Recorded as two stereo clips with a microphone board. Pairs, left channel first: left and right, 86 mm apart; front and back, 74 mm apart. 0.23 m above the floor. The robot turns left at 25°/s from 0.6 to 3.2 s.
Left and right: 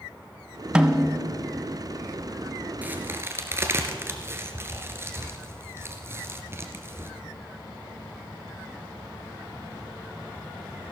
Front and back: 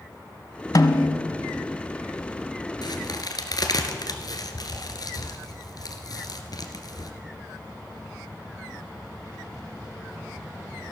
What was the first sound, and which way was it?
A snare drum, 10° right.